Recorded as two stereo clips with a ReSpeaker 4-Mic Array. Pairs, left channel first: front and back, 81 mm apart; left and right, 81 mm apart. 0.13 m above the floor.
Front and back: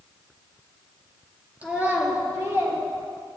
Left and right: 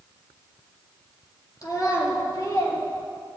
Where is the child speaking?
115° left, 1.9 m; by 2.8 s 135° left, 2 m.